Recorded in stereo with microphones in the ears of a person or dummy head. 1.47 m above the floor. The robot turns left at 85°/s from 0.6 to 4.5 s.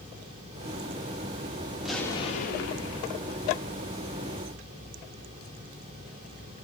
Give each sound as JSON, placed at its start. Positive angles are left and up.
{"t": 1.8, "sound": "an explosion", "azimuth_deg": -175, "distance_m": 0.5}